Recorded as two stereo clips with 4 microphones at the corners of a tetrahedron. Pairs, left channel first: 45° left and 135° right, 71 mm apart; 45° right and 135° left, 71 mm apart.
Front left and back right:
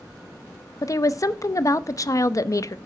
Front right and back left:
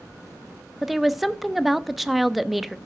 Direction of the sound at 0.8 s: 50° left.